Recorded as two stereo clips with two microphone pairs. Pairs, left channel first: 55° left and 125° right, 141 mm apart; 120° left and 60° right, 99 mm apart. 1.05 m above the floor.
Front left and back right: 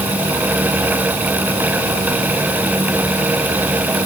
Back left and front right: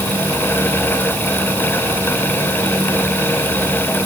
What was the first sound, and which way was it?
Only background noise.